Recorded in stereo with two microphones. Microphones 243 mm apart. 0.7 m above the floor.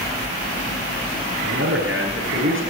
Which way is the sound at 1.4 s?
55° right (ahead or behind).